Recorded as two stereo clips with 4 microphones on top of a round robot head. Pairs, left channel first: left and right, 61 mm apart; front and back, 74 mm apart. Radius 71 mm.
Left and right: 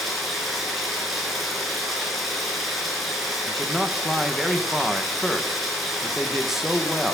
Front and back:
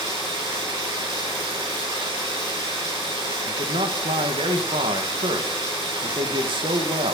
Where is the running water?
Straight behind, 6.5 m.